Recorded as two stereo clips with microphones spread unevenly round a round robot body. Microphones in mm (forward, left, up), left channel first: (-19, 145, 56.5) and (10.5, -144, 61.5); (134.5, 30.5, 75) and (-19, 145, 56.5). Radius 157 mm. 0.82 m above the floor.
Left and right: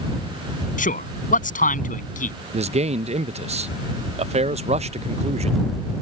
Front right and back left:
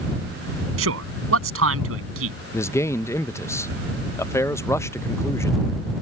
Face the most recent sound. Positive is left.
turn(degrees=-105)